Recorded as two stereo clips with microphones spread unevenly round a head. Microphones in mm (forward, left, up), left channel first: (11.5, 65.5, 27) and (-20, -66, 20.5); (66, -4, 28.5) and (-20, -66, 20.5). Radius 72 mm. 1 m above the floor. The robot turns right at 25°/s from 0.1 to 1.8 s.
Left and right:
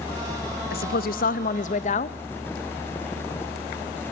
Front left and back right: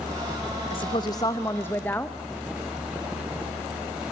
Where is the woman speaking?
85° left, 0.7 m; by 2.2 s 115° left, 0.7 m.